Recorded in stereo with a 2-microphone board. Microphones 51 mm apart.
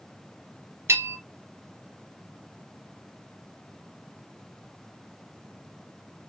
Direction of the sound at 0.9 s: 65° right (ahead or behind).